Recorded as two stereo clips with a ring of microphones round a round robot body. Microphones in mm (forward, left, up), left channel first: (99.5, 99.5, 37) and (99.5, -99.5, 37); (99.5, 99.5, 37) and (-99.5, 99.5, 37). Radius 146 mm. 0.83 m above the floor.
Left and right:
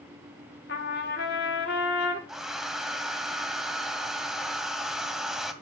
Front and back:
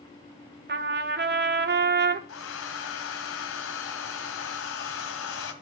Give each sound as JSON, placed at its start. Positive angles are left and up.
{"t": 0.7, "sound": "a trumpet", "azimuth_deg": 145, "distance_m": 1.3}
{"t": 2.3, "sound": "a hair dryer", "azimuth_deg": 0, "distance_m": 1.9}